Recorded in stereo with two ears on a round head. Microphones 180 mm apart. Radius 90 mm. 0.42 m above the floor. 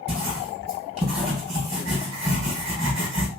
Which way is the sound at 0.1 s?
30° right (ahead or behind).